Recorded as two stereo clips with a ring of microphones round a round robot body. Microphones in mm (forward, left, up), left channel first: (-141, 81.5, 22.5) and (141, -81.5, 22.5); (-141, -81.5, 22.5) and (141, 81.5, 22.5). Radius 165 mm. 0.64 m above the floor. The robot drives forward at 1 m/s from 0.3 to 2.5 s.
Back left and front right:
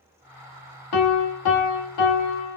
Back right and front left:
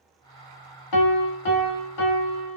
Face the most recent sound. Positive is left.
turn(degrees=-175)